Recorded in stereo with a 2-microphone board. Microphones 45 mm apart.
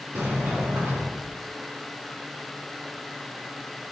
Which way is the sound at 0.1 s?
70° right (ahead or behind).